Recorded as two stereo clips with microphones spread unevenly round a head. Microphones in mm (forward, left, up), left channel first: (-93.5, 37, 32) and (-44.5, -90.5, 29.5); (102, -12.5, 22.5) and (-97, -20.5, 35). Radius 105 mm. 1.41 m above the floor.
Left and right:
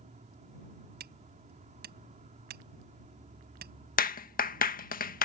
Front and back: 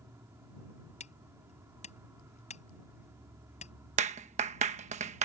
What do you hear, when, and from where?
0.0 s an insect: 100° right
1.0 s hammering: 55° right
4.0 s a clap: 125° left